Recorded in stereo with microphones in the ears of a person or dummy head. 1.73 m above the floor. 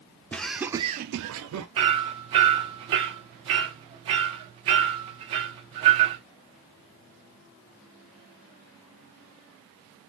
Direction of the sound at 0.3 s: 10° left (ahead or behind).